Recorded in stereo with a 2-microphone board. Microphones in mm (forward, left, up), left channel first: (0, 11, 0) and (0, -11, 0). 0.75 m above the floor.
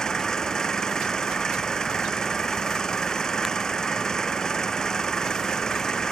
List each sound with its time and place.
0.0 s an engine running: 30° left (ahead or behind)